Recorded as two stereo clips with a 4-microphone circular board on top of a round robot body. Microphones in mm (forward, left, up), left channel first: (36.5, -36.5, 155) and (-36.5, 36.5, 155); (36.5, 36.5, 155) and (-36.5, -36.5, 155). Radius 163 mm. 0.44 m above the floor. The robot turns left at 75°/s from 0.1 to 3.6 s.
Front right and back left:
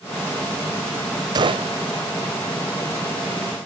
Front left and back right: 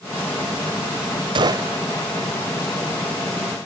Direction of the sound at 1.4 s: 175° right.